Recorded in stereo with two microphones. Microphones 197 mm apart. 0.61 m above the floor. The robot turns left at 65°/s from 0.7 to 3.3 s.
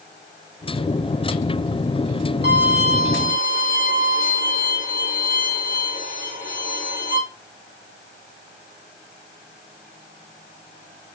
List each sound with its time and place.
2.4 s a violin: 105° left, 2.5 m; by 7.2 s 50° left, 2.5 m